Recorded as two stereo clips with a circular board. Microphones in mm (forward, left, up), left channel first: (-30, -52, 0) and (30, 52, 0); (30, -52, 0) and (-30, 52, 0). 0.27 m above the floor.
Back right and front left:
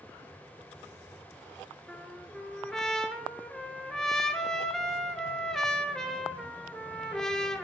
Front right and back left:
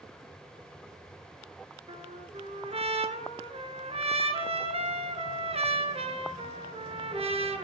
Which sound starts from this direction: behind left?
A trumpet, at 1.9 s.